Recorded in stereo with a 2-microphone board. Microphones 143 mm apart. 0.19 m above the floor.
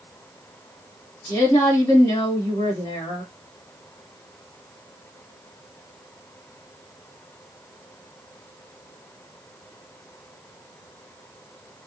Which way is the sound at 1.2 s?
25° left (ahead or behind).